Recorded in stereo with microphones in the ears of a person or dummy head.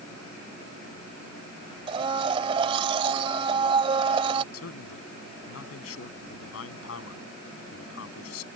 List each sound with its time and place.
1.9 s a blender: 30° right (ahead or behind)
4.5 s a man speaking: 85° left